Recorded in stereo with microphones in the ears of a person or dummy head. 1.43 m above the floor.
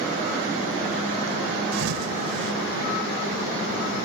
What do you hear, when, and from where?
1.7 s a thud: 80° right